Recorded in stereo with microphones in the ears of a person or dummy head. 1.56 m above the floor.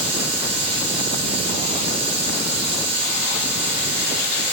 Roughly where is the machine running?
Right.